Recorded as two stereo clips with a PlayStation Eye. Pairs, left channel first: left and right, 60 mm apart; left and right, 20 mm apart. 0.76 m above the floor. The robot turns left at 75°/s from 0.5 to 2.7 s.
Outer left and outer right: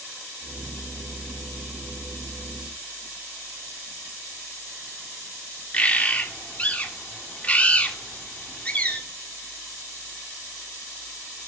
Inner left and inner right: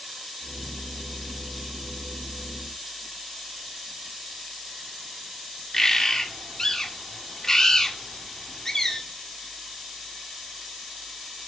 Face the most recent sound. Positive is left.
turn(degrees=25)  # may be behind; listen again after turning